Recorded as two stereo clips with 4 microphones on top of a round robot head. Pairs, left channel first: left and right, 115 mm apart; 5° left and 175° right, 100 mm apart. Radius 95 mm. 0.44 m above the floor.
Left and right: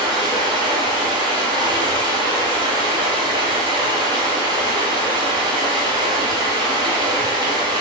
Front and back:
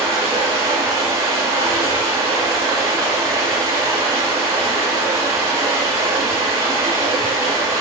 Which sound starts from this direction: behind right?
Running water, at 0.0 s.